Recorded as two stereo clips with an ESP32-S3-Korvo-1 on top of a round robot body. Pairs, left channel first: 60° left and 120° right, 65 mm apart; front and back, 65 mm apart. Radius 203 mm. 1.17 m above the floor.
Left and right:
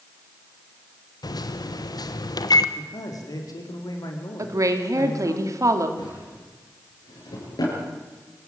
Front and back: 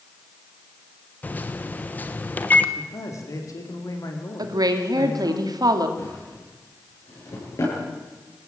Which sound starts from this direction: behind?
A woman speaking, at 4.4 s.